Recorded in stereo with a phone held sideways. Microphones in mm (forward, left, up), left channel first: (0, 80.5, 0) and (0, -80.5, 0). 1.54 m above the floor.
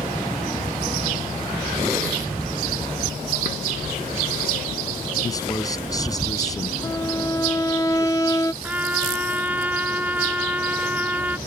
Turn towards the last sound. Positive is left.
turn(degrees=-10)  # may be behind; listen again after turning